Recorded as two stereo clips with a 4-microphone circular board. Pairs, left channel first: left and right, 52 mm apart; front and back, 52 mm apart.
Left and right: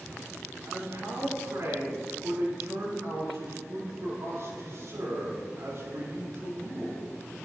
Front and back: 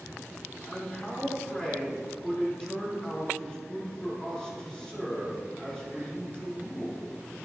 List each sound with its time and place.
0.7 s a man speaking: 70° right, 4 m